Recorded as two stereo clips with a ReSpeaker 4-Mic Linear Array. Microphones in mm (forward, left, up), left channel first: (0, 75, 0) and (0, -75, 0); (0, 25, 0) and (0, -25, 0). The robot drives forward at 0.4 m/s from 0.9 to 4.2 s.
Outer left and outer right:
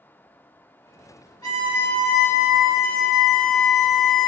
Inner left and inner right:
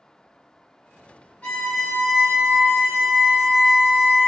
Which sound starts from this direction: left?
A violin, at 1.4 s.